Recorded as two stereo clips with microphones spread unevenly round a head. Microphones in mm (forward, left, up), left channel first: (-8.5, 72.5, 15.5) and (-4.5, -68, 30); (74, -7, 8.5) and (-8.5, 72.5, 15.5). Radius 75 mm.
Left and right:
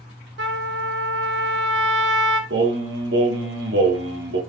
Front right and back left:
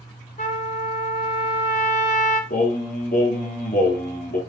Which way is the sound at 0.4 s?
90° right.